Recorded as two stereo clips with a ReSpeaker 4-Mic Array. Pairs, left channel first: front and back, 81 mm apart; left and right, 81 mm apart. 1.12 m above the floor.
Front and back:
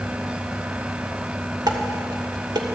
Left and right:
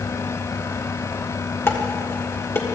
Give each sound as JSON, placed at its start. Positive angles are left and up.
{"t": 1.7, "sound": "dishes clattering", "azimuth_deg": 150, "distance_m": 1.7}